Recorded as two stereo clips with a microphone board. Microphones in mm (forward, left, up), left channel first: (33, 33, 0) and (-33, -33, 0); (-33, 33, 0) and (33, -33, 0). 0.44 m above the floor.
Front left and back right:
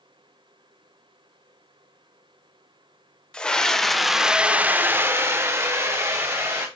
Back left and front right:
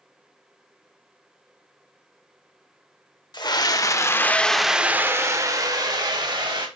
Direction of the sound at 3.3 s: 120° left.